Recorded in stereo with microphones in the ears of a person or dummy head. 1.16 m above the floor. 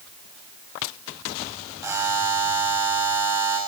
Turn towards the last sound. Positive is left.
turn(degrees=-10)  # may be behind; listen again after turning